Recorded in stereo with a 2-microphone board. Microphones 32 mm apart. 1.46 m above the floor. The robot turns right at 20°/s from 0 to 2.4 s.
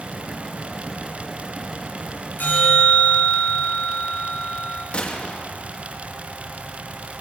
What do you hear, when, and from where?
2.4 s a bell: 75° left (ahead or behind), 8 m
4.9 s a gunshot: 40° left (ahead or behind), 2.5 m